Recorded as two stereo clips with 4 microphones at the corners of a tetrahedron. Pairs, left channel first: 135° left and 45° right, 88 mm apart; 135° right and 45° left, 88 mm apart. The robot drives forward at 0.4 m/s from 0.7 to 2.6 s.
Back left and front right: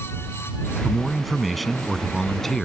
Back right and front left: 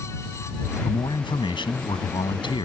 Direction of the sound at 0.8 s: 130° right.